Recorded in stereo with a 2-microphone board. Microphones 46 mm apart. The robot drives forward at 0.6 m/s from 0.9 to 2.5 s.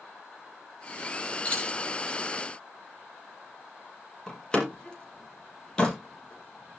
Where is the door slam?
15° left (ahead or behind), 4 m.